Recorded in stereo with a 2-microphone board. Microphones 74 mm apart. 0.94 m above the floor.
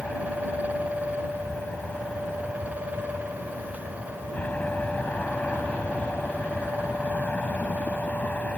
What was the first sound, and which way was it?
An aircraft, 20° left (ahead or behind).